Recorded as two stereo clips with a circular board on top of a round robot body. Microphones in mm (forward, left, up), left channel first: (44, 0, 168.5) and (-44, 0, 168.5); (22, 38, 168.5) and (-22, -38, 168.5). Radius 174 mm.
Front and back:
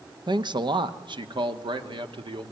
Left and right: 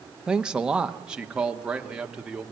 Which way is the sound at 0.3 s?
160° left.